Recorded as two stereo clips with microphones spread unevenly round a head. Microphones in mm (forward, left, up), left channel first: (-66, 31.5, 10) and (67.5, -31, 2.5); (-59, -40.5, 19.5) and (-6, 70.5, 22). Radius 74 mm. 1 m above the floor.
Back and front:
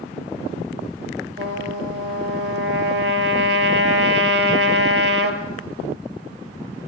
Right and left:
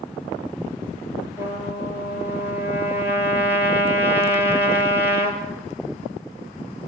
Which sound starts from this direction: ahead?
A trumpet, at 1.4 s.